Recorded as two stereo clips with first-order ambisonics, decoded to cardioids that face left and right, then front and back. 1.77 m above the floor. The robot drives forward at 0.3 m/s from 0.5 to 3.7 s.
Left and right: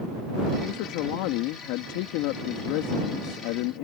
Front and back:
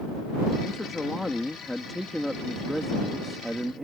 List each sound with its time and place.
0.6 s a man speaking: 80° left; by 3.8 s 95° left